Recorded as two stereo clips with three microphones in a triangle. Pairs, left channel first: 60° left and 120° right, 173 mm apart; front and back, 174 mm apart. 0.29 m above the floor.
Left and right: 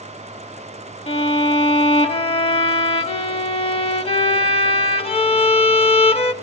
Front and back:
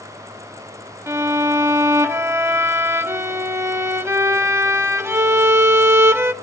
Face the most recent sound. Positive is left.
turn(degrees=105)